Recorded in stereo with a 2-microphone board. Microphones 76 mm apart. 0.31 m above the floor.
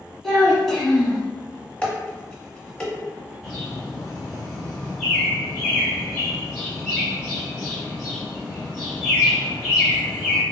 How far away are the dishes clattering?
About 0.7 m.